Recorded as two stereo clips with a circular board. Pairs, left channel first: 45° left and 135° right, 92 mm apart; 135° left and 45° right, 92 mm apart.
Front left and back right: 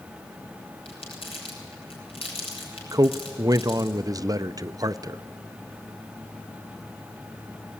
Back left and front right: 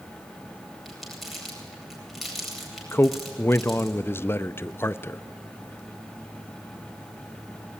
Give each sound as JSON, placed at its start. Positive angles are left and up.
{"t": 0.8, "sound": "crumpling", "azimuth_deg": 45, "distance_m": 8.5}
{"t": 2.9, "sound": "a man speaking", "azimuth_deg": -170, "distance_m": 0.6}